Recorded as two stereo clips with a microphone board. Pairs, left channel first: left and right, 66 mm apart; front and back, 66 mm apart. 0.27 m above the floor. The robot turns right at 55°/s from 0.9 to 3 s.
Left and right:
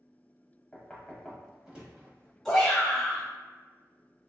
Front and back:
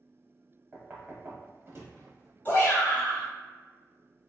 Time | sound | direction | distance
0.7 | knocking | 155° left | 0.9 m
2.5 | a shout | 10° left | 1.8 m